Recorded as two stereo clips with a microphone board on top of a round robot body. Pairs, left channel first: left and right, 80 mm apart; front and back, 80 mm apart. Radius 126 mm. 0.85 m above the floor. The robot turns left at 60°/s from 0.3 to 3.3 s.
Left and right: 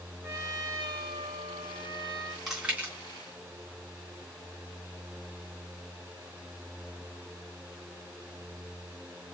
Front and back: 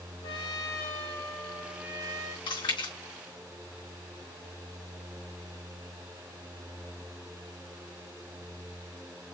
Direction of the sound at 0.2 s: 25° right.